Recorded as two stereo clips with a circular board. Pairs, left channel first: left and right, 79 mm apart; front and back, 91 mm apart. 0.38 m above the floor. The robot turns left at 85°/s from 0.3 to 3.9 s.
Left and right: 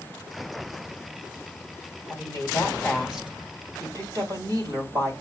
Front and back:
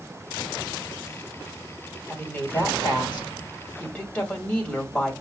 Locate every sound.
2.1 s a woman speaking: 80° left, 2 m; by 5.1 s 70° right, 2 m